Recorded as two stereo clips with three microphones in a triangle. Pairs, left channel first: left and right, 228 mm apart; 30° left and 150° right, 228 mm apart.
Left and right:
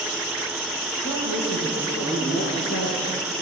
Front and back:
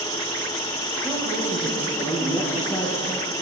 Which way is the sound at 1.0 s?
105° left.